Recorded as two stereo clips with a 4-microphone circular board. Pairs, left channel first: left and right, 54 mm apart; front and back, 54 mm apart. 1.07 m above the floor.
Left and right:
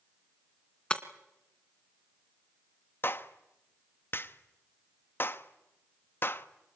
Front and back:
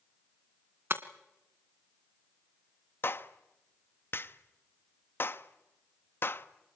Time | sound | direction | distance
0.9 | breaking glass | 155° left | 1.5 m
3.0 | a clap | 45° left | 1.0 m